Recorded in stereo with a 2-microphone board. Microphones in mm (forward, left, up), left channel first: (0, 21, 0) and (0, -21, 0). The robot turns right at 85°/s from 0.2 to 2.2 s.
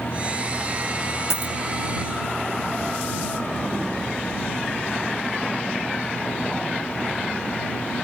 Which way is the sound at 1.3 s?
80° left.